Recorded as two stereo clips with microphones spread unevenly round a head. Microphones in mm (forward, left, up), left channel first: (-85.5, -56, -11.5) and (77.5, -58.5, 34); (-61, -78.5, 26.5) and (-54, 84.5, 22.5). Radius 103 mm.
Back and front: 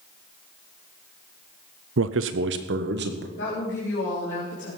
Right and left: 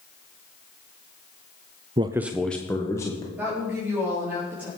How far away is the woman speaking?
About 4 m.